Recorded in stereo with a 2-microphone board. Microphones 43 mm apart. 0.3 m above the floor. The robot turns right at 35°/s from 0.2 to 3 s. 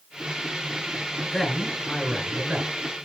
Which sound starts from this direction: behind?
A man speaking, at 1.3 s.